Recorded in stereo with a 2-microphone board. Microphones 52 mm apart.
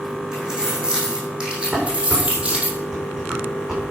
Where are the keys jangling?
10° right (ahead or behind), 5 m; by 2.7 s 25° right (ahead or behind), 3 m.